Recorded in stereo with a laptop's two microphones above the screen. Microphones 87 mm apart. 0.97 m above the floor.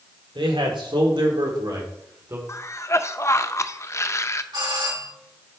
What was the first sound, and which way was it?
A man speaking, 80° right.